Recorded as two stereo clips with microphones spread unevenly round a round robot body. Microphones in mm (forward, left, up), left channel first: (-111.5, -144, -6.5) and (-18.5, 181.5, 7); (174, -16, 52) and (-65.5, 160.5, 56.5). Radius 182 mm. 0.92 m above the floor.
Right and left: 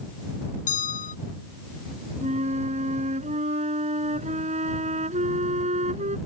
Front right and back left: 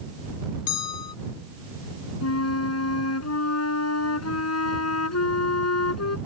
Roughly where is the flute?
Ahead.